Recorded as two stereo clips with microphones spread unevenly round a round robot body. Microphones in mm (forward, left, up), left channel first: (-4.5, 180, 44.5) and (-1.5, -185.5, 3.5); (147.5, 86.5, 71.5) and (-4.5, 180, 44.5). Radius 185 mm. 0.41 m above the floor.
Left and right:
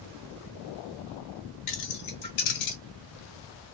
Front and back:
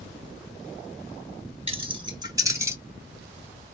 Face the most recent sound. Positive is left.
turn(degrees=70)